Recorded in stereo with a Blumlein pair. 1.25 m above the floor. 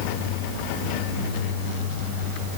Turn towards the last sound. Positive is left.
No sound to turn to.